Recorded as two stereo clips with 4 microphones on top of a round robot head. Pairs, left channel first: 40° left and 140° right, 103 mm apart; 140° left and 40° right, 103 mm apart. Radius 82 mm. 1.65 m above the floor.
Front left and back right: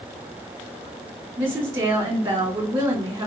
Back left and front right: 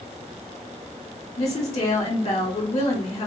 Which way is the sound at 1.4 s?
170° left.